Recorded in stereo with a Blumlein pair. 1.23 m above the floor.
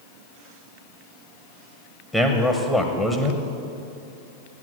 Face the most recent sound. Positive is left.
turn(degrees=10)